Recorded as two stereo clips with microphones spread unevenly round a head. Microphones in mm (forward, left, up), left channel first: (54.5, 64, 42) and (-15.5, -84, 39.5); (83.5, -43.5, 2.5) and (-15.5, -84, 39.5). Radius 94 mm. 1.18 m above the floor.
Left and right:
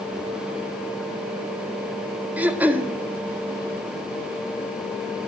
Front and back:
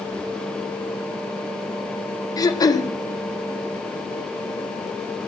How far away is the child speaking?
No child speaking in this recording.